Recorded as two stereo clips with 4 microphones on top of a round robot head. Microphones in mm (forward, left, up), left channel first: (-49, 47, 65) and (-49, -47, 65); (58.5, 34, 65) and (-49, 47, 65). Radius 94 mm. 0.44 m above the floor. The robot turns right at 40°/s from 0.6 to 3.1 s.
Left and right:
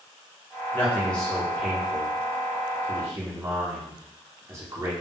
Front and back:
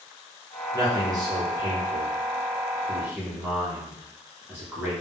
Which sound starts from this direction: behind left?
A man speaking, at 0.7 s.